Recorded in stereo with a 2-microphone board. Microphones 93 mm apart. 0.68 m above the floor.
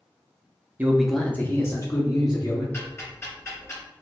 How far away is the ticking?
About 1.7 m.